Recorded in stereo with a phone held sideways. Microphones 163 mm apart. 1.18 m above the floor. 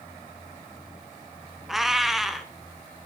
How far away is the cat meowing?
About 1.4 m.